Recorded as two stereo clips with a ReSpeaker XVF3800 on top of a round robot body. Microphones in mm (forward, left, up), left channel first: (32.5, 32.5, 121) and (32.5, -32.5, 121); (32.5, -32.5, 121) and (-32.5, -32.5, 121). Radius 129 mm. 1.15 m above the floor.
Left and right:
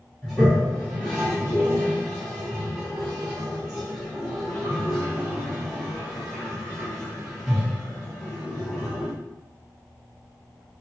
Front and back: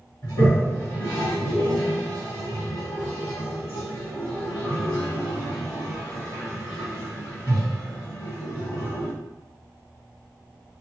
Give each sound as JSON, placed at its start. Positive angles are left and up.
{"t": 0.2, "sound": "a toilet flushing", "azimuth_deg": -5, "distance_m": 1.7}